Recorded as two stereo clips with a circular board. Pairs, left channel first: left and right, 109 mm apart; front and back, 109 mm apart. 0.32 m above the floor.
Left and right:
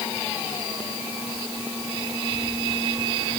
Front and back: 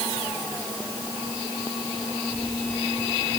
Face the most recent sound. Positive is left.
No sound to turn to.